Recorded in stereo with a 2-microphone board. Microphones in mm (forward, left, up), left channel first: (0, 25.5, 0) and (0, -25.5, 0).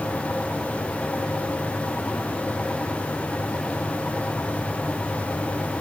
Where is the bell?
I don't hear a bell.